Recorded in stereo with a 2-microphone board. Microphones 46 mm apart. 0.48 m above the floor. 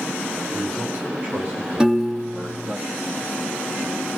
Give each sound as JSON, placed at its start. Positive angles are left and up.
{"t": 0.5, "sound": "a man speaking", "side_deg": -45, "distance_m": 3.0}
{"t": 1.8, "sound": "a piano", "side_deg": -15, "distance_m": 0.9}